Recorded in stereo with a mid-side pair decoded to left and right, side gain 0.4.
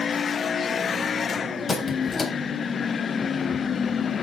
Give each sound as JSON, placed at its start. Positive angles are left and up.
{"t": 1.7, "sound": "a squeak", "azimuth_deg": 45, "distance_m": 3.5}